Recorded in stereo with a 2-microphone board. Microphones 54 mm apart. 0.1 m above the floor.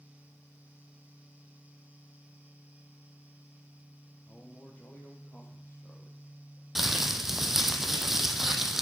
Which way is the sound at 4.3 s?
35° left (ahead or behind).